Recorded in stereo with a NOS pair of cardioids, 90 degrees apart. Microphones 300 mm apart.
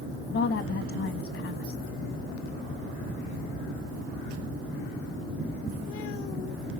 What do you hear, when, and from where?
0.3 s a woman speaking: 45° left, 1.6 m